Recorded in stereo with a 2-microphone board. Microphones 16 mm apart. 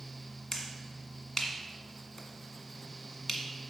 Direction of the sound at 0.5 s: 35° left (ahead or behind).